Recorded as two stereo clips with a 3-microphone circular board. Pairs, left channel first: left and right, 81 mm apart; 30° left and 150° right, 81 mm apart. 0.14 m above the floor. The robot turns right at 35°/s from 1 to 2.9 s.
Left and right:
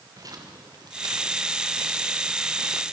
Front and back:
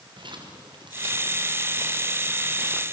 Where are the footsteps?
130° right, 5.5 m; by 2.8 s 55° right, 5 m.